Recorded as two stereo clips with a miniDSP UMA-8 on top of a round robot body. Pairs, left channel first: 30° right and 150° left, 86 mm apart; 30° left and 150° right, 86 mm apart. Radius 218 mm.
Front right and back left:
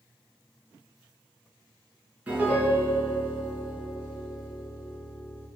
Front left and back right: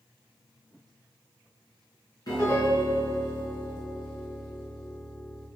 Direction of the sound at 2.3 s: 75° left.